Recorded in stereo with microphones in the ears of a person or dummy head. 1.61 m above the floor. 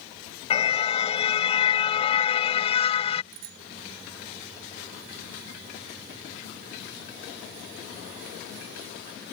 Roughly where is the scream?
No scream in this recording.